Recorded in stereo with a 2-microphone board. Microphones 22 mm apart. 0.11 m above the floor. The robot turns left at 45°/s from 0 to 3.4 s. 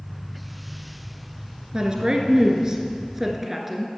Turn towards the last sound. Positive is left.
turn(degrees=-165)